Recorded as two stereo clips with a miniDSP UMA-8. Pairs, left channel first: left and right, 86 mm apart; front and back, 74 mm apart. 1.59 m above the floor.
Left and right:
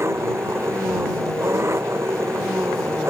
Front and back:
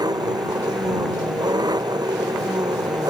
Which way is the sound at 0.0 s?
150° right.